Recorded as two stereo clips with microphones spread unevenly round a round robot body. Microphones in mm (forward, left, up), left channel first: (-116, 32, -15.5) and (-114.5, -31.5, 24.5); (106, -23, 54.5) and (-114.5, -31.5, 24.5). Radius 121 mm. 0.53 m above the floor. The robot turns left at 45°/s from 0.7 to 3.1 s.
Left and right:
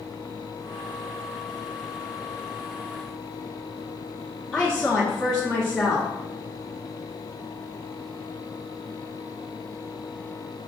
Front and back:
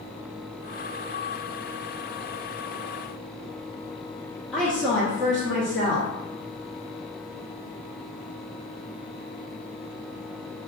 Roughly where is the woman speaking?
Left.